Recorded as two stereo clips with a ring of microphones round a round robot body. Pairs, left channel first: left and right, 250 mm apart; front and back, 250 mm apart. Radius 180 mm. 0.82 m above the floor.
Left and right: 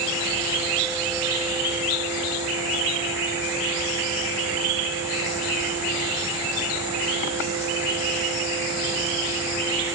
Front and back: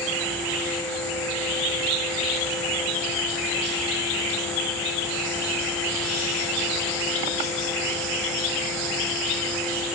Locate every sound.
Only background noise.